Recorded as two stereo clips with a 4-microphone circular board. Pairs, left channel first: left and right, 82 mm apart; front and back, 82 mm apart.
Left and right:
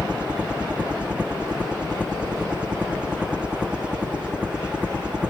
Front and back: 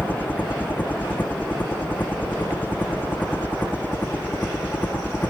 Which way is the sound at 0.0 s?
30° right.